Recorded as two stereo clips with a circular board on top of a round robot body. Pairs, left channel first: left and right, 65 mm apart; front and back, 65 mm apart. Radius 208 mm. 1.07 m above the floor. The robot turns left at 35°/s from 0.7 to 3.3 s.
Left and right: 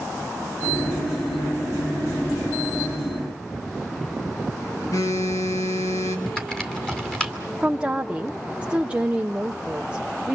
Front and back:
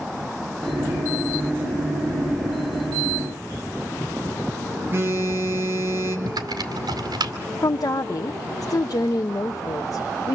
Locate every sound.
4.9 s a phone buzzing: 125° left, 3 m
6.3 s typing on a keyboard: 170° left, 2 m
7.6 s a woman speaking: 20° right, 0.8 m